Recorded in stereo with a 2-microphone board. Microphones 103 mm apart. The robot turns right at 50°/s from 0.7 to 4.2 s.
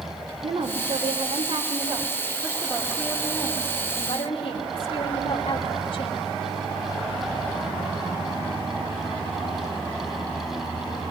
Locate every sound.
0.4 s a woman speaking: 115° right, 2.5 m; by 6.3 s 60° left, 2.5 m